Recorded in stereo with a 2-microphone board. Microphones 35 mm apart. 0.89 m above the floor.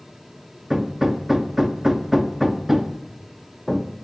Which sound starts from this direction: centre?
Hammering, at 0.7 s.